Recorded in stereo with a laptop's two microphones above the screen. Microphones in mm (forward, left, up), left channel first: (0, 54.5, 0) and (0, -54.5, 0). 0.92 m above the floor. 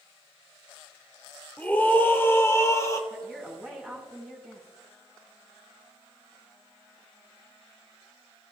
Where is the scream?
15° left (ahead or behind), 3 m; by 3.0 s 30° left (ahead or behind), 3 m.